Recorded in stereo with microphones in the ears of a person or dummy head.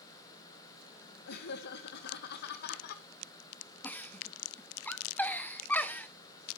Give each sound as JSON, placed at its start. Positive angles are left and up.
{"t": 1.3, "sound": "laughter", "side_deg": 60, "distance_m": 1.7}
{"t": 3.8, "sound": "a giggle", "side_deg": 10, "distance_m": 1.1}